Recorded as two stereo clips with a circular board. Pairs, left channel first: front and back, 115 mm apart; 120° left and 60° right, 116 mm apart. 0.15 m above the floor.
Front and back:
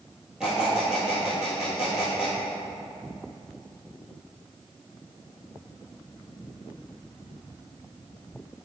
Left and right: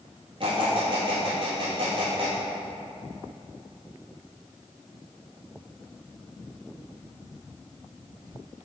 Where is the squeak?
95° right, 1.5 m.